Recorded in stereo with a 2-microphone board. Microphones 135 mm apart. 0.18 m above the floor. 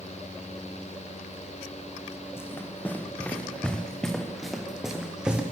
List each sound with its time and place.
2.4 s running footsteps: 20° left (ahead or behind), 5 m; by 5.4 s 5° right (ahead or behind), 6 m